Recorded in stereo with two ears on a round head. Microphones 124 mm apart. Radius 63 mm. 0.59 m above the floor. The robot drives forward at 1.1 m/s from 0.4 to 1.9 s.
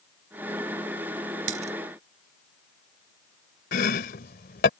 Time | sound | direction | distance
1.5 | a dropped coin | 60° right (ahead or behind) | ?
3.7 | chopping | 75° left (ahead or behind) | ?